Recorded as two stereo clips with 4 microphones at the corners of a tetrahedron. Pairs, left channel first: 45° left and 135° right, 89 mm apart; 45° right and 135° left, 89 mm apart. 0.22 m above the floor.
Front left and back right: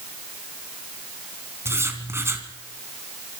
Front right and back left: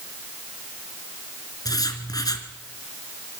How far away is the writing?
About 2.5 m.